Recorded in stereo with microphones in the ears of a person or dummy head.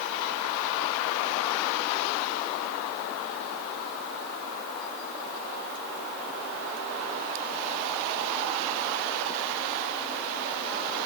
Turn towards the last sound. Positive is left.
No sound to turn to.